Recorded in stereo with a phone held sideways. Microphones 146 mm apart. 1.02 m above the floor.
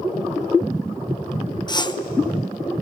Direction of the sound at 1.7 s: 30° left (ahead or behind).